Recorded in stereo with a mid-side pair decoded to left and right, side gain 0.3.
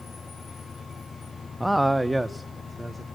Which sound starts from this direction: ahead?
A man speaking, at 1.6 s.